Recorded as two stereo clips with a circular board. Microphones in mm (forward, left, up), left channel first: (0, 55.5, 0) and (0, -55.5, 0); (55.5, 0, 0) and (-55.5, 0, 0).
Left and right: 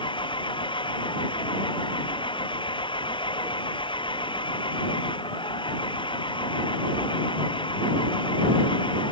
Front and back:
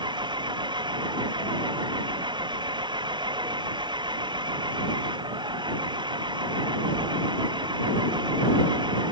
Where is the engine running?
135° left.